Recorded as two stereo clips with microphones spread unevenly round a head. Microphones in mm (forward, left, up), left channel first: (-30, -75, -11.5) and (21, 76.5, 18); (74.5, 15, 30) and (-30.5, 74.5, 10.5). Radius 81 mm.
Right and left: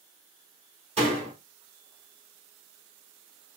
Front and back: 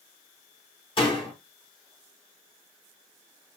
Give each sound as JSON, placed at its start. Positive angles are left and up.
{"t": 1.0, "sound": "a door slam", "azimuth_deg": 20, "distance_m": 3.0}